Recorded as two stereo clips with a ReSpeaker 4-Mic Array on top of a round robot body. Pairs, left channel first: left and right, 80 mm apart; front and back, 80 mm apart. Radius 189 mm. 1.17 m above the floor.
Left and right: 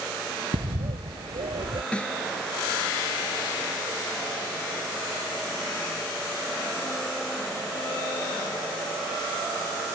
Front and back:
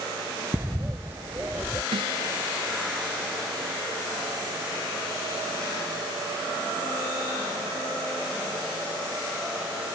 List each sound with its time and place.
0.5 s a bird: 115° right
1.9 s a snare drum: 165° left